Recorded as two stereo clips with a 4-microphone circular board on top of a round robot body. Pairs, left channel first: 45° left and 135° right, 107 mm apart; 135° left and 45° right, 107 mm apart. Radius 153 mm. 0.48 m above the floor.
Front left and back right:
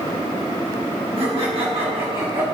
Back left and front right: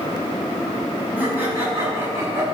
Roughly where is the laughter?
Behind right.